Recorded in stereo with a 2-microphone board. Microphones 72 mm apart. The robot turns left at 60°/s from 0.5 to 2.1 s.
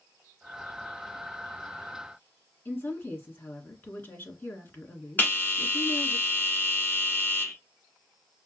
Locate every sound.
2.6 s a woman speaking: 30° left (ahead or behind), 1.4 m
5.2 s a bell: 25° left (ahead or behind), 1.1 m